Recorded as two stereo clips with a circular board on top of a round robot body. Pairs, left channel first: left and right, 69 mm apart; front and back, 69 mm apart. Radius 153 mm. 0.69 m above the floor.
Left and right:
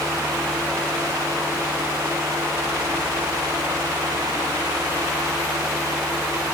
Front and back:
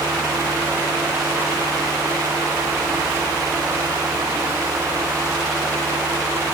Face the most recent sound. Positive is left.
No sound to turn to.